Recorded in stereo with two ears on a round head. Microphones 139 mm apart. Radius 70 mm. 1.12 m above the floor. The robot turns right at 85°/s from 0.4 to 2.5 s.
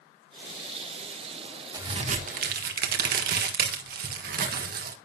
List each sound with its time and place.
1.7 s a crack: 155° right, 1.5 m; by 5.0 s 90° right, 1.5 m